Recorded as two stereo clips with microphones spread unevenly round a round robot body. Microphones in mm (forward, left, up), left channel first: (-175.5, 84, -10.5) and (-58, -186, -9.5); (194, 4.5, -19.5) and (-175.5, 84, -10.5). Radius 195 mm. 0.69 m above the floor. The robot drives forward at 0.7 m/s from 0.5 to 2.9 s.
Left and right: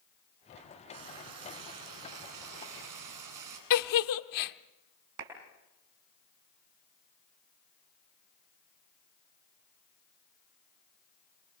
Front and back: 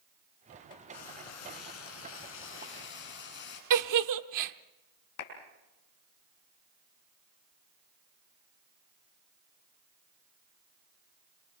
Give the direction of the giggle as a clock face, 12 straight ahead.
8 o'clock.